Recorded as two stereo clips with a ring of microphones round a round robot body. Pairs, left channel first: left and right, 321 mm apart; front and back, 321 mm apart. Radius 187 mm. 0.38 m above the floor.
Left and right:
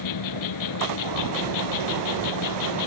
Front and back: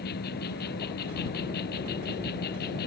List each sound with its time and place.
0.0 s an insect: 65° left